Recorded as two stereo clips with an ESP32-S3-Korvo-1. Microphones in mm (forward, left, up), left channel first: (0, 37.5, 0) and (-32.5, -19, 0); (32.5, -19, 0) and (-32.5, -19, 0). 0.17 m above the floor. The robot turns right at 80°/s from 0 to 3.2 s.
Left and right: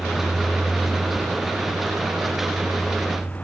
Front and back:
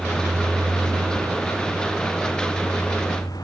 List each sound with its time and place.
0.0 s a vehicle: 100° left; by 3.5 s 5° right